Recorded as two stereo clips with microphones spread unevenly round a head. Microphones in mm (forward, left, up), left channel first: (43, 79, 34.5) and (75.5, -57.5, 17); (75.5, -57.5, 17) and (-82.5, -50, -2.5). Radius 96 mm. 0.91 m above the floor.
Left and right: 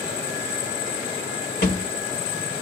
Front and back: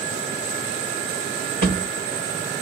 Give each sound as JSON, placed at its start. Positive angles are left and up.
{"t": 1.6, "sound": "a thud", "azimuth_deg": 125, "distance_m": 1.4}